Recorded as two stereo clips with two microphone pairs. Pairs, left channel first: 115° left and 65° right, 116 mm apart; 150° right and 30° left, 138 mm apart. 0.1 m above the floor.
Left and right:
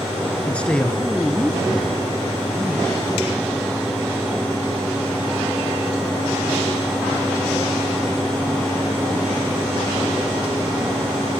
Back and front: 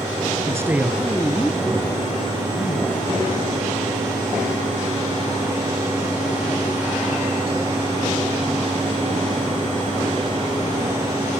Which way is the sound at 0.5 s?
50° left.